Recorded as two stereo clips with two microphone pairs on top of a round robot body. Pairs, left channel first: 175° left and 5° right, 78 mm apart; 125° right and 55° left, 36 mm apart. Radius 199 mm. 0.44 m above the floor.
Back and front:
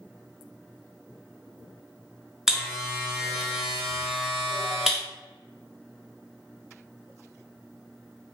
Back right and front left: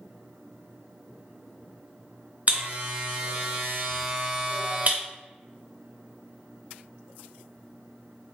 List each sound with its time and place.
2.5 s a buzzer: 80° left, 1.0 m